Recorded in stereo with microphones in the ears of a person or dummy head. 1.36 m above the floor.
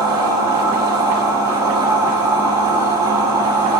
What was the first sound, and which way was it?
A machine running, 15° right (ahead or behind).